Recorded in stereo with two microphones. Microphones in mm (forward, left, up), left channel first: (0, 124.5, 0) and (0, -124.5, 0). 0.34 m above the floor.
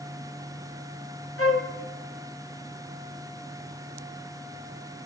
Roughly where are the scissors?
I don't hear scissors.